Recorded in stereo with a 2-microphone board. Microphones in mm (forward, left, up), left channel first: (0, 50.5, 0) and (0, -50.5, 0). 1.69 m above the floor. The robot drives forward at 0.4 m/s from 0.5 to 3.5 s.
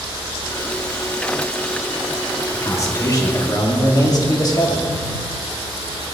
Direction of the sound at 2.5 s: 30° left (ahead or behind).